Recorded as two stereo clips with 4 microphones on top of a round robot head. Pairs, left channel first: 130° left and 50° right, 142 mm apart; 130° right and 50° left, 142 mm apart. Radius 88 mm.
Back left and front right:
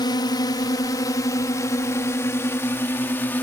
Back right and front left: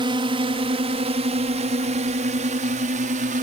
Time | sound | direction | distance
0.0 | a drone | 85° left | ?